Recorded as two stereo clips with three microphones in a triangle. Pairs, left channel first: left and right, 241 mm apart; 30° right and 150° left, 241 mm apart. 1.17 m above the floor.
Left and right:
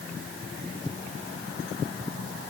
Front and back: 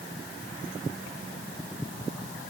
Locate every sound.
Only background noise.